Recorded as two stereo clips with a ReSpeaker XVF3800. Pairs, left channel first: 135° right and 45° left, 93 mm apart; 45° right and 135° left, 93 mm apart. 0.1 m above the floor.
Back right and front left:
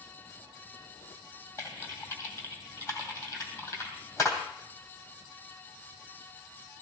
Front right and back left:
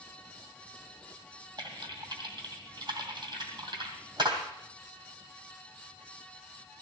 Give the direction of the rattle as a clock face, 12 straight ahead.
No rattle in this recording.